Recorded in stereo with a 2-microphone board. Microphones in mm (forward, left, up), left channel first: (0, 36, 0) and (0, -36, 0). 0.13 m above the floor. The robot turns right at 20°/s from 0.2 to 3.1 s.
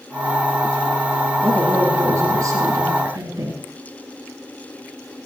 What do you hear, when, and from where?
1.4 s a woman speaking: 140° right, 3 m; by 3.6 s 105° right, 3 m